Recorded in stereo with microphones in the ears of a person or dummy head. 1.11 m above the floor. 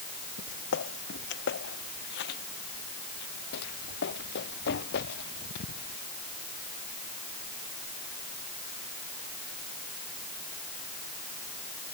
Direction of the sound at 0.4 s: 70° left (ahead or behind).